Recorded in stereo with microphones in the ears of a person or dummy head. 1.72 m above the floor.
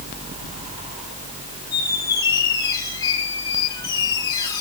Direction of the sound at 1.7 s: 20° left (ahead or behind).